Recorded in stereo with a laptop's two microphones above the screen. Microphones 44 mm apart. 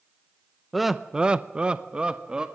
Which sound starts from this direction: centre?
Laughter, at 0.7 s.